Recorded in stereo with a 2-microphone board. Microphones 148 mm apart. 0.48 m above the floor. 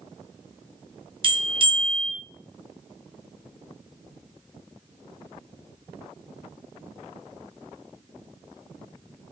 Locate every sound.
1.2 s a bell: 35° right (ahead or behind), 0.9 m